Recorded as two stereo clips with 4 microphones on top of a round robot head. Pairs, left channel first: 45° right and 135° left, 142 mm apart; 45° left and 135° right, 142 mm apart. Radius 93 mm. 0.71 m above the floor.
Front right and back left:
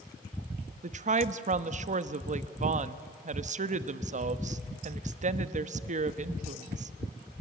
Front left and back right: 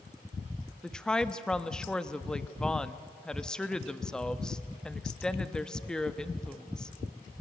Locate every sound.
0.8 s a woman speaking: 130° left, 0.9 m